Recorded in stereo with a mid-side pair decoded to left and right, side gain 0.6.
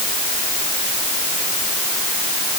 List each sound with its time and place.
Only background noise.